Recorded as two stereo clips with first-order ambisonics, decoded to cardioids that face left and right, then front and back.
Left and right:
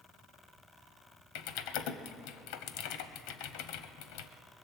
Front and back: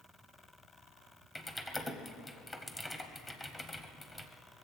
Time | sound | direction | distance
1.4 | typing on a keyboard | 80° left | 0.8 m